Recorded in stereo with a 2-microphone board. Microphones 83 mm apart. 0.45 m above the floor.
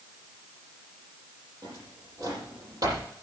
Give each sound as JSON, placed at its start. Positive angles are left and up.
{"t": 1.6, "sound": "a drawer", "side_deg": -55, "distance_m": 8.0}